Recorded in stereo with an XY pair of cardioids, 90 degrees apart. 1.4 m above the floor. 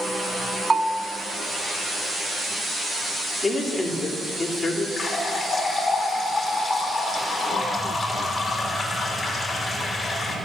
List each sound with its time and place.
0.7 s a bell: 25° right, 0.8 m
3.4 s a man speaking: 35° left, 3 m
5.0 s a running tap: 35° left, 3 m